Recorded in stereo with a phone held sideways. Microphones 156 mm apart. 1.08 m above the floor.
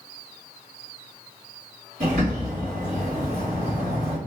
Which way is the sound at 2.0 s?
55° right (ahead or behind).